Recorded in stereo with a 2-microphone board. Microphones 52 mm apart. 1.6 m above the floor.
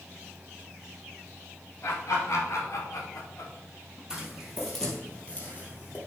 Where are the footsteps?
10° right (ahead or behind), 2 m; by 6.0 s 40° left (ahead or behind), 2.5 m.